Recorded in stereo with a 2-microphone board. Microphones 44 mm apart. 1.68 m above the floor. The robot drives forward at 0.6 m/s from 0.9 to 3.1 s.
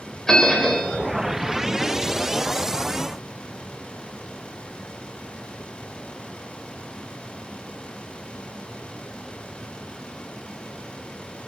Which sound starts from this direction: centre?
A bell, at 0.3 s.